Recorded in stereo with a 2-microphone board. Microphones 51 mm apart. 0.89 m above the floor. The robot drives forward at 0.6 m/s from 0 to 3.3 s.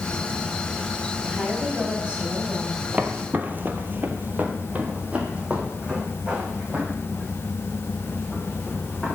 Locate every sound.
1.3 s a woman speaking: 20° right (ahead or behind), 6 m
2.9 s footsteps: 30° right (ahead or behind), 1.3 m; by 9.2 s 10° right (ahead or behind), 6 m